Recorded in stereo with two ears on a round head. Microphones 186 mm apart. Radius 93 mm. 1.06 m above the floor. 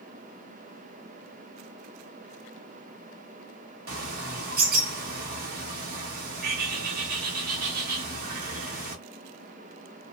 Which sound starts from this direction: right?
A bird, at 3.9 s.